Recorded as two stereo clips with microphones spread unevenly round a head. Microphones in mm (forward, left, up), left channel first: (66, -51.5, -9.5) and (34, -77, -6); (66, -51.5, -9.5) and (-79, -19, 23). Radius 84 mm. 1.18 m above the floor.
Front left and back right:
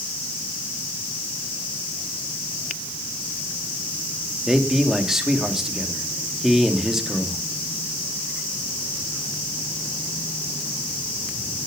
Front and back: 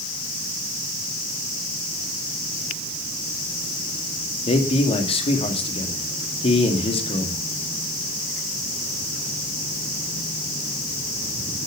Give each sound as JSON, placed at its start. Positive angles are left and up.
{"t": 4.5, "sound": "a man speaking", "azimuth_deg": -60, "distance_m": 2.5}